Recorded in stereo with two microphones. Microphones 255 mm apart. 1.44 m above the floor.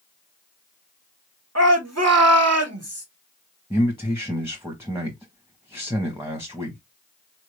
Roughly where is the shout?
Right.